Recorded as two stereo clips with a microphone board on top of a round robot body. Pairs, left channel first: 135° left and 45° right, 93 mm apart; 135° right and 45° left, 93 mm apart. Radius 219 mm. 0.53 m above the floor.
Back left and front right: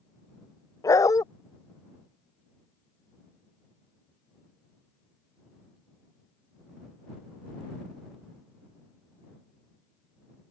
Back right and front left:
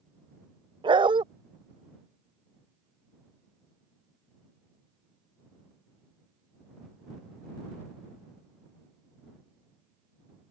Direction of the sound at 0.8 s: 80° left.